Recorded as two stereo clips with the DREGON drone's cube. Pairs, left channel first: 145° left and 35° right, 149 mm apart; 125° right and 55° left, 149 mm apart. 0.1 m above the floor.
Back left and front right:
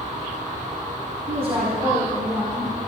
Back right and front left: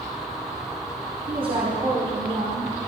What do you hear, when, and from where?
1.3 s a woman speaking: 5° left, 3 m; by 2.8 s 20° left, 3.5 m